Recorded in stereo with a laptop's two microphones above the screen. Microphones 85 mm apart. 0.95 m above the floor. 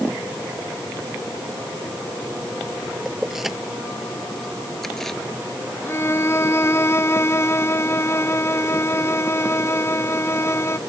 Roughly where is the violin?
Left.